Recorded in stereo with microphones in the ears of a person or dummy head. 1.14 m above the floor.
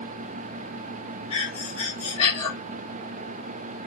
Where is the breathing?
30° left (ahead or behind), 1.1 m.